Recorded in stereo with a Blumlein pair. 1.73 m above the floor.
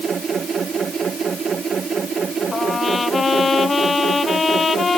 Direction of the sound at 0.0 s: 20° right.